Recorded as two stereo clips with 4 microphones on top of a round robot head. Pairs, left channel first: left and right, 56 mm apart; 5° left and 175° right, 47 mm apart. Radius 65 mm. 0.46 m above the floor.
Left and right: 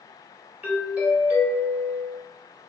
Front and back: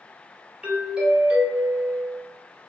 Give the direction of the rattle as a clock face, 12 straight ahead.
I don't hear a rattle.